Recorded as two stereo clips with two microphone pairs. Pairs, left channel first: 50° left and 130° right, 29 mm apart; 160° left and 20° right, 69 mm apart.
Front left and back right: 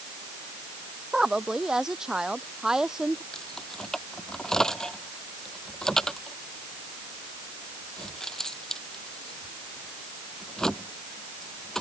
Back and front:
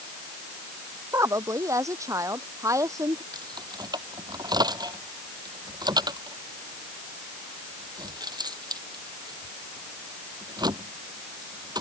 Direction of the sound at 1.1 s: 60° right.